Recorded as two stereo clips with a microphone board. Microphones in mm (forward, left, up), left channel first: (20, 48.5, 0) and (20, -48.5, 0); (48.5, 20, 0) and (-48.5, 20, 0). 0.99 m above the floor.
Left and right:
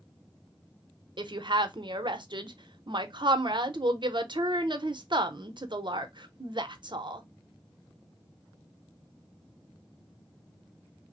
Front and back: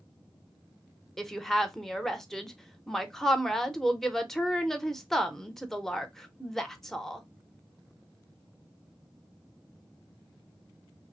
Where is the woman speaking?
85° right, 0.7 m.